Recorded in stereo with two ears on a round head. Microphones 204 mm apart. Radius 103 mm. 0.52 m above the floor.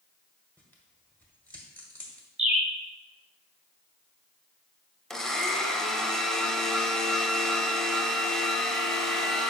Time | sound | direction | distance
0.6 | tearing paper | 10° left (ahead or behind) | 1.4 m
2.4 | a bird | 5° right (ahead or behind) | 1.2 m
5.1 | a blender | centre (ahead or behind) | 0.8 m